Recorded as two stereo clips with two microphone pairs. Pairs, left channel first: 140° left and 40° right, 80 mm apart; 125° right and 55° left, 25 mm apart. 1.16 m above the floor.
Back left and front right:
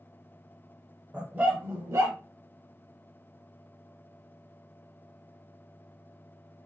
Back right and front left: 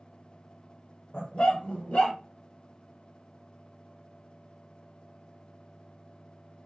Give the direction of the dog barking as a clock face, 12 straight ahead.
4 o'clock.